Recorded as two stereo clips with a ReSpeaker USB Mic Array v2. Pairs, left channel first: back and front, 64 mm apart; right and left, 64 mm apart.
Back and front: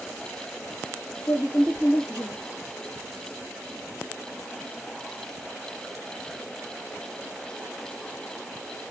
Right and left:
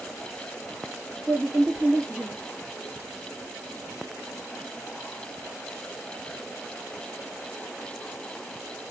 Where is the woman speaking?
170° left, 2.5 m.